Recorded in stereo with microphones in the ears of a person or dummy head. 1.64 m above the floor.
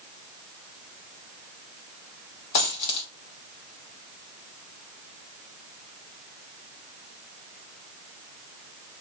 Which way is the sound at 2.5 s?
50° left (ahead or behind).